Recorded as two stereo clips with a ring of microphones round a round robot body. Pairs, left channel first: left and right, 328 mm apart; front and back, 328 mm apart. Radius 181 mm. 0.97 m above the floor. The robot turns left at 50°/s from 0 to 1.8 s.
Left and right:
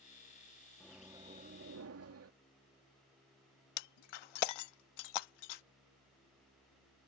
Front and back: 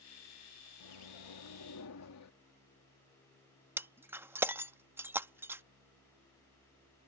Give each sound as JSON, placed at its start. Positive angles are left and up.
{"t": 0.8, "sound": "a microwave", "azimuth_deg": 5}
{"t": 3.8, "sound": "breaking glass", "azimuth_deg": 95}